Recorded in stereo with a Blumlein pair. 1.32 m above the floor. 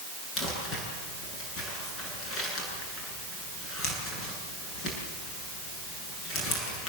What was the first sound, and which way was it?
Crumpling, 25° left.